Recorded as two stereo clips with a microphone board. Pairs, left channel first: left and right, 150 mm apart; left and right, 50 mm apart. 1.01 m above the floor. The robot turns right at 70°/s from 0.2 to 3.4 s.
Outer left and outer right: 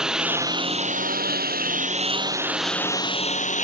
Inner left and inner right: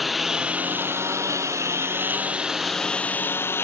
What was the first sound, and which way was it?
A lawn mower, 5° right (ahead or behind).